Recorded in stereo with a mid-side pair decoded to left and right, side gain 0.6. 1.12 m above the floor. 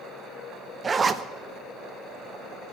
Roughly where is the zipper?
Ahead right.